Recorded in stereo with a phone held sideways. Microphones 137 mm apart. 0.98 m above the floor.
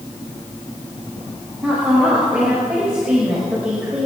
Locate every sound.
1.6 s a woman speaking: 10° right (ahead or behind), 4.5 m